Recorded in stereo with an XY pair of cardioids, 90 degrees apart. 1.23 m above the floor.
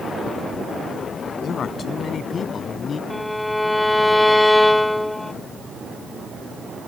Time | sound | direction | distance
1.4 | a man speaking | 60° left | ?
3.1 | a violin | 10° left | ?